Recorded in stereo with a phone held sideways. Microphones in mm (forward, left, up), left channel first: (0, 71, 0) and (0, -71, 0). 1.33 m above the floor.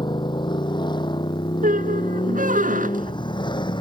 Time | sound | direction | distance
0.0 | a motorcycle | 35° left (ahead or behind) | ?
1.6 | a squeak | 70° right (ahead or behind) | ?